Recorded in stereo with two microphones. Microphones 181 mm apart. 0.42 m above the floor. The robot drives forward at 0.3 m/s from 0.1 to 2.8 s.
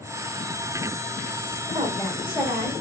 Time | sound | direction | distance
1.7 | a woman speaking | 30° right (ahead or behind) | 1.1 m